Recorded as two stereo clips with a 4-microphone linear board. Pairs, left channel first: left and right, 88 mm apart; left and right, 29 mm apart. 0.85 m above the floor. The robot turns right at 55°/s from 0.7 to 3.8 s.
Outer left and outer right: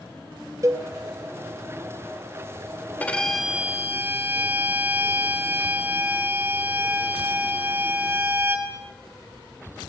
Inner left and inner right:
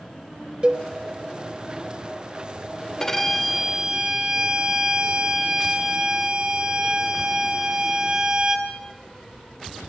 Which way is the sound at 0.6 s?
35° right (ahead or behind).